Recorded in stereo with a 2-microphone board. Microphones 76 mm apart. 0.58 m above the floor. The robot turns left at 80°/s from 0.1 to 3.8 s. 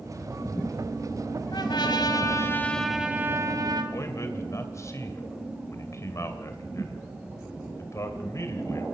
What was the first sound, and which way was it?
A trumpet, 110° left.